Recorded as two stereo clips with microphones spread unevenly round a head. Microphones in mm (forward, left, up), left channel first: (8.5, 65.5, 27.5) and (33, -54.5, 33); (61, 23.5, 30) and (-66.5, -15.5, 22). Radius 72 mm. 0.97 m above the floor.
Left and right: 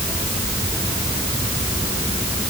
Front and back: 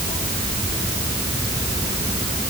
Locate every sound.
Only background noise.